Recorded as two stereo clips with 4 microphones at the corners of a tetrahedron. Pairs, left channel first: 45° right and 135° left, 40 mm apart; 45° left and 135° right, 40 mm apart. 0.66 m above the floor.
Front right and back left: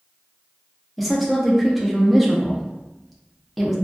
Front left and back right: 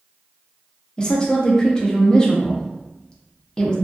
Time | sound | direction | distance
1.0 | a woman speaking | 45° left | 0.5 m